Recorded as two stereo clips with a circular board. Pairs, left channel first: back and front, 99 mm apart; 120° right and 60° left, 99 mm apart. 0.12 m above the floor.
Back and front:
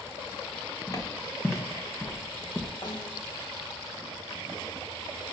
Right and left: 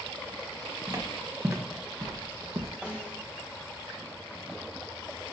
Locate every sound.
0.9 s footsteps: 120° left, 2 m; by 2.7 s 95° left, 1.2 m
2.8 s a snare drum: 140° left, 1.5 m